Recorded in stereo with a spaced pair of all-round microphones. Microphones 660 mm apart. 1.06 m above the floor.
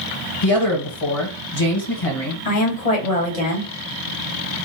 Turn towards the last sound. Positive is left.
turn(degrees=65)  # may be behind; listen again after turning